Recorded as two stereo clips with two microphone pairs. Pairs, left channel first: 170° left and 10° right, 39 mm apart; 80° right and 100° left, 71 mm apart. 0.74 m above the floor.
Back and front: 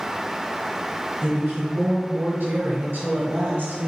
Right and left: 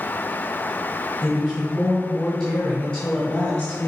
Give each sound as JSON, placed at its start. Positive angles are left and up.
{"t": 1.2, "sound": "a woman speaking", "azimuth_deg": 15, "distance_m": 3.0}